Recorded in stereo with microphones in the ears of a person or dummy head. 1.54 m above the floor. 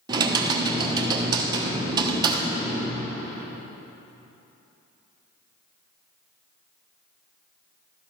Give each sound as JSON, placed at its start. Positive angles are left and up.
{"t": 0.1, "sound": "typing on a keyboard", "side_deg": -25, "distance_m": 1.0}